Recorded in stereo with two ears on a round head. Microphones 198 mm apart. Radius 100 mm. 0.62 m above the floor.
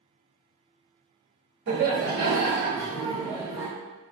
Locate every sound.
1.7 s laughter: 55° right (ahead or behind), 1.1 m; by 3.7 s 20° right (ahead or behind), 1.4 m